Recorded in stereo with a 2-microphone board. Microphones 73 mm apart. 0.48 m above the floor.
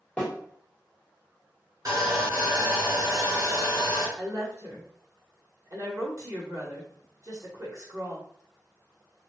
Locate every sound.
0.2 s a snare drum: 20° left (ahead or behind), 1.4 m
1.9 s sawing: 55° right (ahead or behind), 2.0 m
4.2 s a woman speaking: 50° right (ahead or behind), 1.6 m